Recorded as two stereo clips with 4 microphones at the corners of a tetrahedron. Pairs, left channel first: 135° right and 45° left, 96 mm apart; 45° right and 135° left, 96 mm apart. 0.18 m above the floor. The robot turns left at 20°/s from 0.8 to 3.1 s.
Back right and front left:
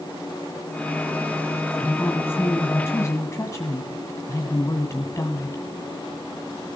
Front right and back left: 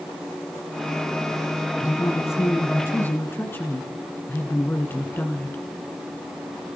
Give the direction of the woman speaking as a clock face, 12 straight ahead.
2 o'clock.